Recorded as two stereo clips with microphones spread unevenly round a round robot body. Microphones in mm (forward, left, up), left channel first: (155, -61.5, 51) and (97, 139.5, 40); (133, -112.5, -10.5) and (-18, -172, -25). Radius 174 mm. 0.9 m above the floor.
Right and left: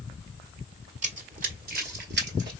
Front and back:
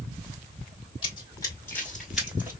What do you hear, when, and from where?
1.0 s running footsteps: 60° left, 1.2 m; by 2.5 s 125° left, 1.1 m